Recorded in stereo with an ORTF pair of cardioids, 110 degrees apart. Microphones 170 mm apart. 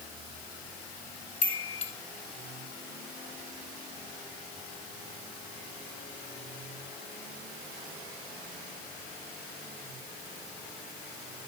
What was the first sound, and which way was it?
A chime, 40° left.